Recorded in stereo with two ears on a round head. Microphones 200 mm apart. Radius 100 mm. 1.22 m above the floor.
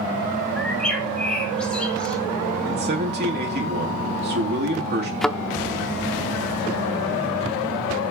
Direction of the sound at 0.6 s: 5° left (ahead or behind).